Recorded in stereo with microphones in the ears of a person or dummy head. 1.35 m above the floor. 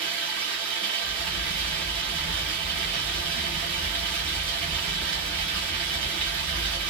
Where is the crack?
60° right (ahead or behind), 2 m.